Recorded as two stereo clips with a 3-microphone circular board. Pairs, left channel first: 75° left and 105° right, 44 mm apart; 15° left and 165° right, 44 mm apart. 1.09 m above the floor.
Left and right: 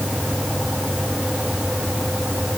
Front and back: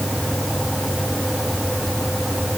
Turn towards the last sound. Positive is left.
No sound to turn to.